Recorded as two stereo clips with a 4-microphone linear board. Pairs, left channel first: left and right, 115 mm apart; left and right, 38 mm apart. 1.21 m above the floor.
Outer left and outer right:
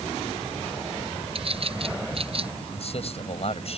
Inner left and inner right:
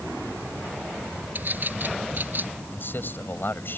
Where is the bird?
55° right (ahead or behind).